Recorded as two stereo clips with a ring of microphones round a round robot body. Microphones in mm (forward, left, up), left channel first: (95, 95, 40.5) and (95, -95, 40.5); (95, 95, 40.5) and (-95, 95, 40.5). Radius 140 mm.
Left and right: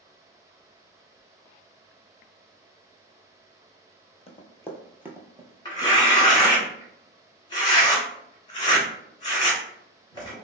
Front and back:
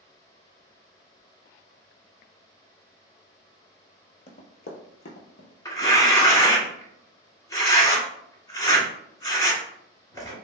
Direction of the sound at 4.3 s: 40° left.